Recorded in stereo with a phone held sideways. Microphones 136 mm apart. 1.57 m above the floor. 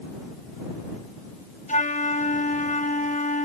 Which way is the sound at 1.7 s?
65° left (ahead or behind).